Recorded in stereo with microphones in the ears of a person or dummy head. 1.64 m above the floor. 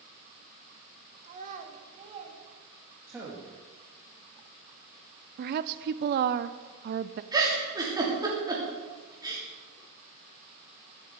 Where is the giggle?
25° right (ahead or behind), 3 m.